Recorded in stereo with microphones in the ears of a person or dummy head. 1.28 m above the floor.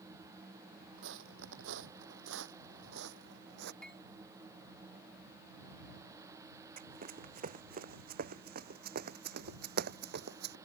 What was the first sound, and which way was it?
Footsteps, 65° right (ahead or behind).